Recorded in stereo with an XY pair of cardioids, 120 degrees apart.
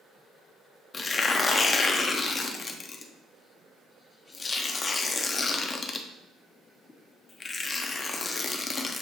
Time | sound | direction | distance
0.9 | tearing paper | 30° left | 0.5 m